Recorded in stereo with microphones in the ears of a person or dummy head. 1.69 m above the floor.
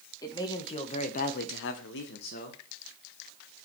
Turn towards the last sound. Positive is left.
turn(degrees=45)  # may be behind; listen again after turning